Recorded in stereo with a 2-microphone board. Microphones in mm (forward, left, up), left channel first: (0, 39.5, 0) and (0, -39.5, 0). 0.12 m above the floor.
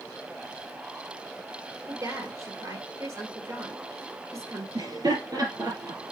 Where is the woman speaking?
50° right (ahead or behind), 2.5 m.